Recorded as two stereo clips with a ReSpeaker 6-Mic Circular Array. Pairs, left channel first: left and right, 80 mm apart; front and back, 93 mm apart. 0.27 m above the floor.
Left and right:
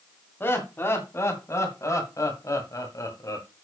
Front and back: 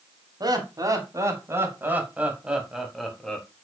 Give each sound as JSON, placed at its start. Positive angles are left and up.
{"t": 0.4, "sound": "laughter", "azimuth_deg": 145, "distance_m": 2.5}